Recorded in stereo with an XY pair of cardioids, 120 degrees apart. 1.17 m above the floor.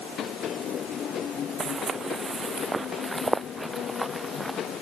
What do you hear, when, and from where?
1.6 s footsteps: 40° right; by 4.6 s 5° right